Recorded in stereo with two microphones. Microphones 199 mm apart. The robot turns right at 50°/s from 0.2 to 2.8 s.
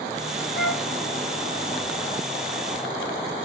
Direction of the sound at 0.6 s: 70° left (ahead or behind).